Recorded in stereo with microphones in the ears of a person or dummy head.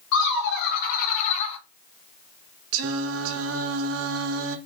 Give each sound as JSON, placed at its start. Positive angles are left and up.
{"t": 0.1, "sound": "laughter", "side_deg": 70, "distance_m": 1.2}
{"t": 2.7, "sound": "singing", "side_deg": -70, "distance_m": 0.7}